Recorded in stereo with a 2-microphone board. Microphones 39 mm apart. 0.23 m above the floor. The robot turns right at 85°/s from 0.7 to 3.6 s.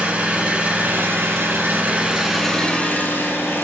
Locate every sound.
0.0 s an engine running: 145° right, 4.5 m; by 3.6 s 105° left, 4.5 m